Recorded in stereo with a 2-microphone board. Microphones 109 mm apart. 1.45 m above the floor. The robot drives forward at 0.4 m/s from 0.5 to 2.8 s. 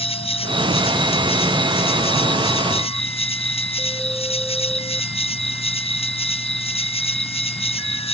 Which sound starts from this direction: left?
An insect, at 0.0 s.